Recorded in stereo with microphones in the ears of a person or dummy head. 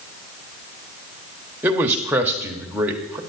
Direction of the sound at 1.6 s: 5° right (ahead or behind).